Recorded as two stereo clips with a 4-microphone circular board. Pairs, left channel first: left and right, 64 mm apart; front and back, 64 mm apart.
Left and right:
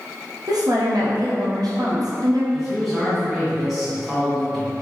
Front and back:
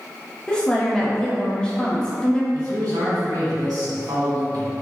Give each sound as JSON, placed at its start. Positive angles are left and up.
{"t": 0.5, "sound": "a woman speaking", "azimuth_deg": -75, "distance_m": 0.7}
{"t": 2.5, "sound": "a man speaking", "azimuth_deg": 180, "distance_m": 1.6}